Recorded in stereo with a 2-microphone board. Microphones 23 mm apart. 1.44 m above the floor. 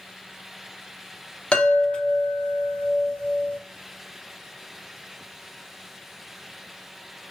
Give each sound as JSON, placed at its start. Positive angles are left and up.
{"t": 1.5, "sound": "a chime", "side_deg": 45, "distance_m": 0.8}